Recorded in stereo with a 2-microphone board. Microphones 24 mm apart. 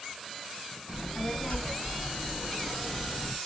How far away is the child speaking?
About 1.8 m.